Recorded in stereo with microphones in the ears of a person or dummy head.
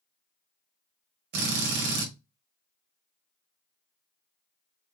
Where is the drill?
50° right (ahead or behind), 1.4 m.